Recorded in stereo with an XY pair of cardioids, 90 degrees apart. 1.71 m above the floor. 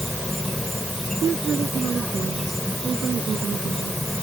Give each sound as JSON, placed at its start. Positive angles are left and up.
{"t": 0.0, "sound": "an insect", "azimuth_deg": 5}
{"t": 1.2, "sound": "a woman speaking", "azimuth_deg": -55}